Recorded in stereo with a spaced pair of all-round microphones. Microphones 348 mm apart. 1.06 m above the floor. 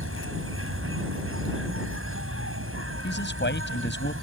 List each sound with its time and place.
0.0 s an insect: 40° right (ahead or behind)
3.0 s a man speaking: 30° left (ahead or behind)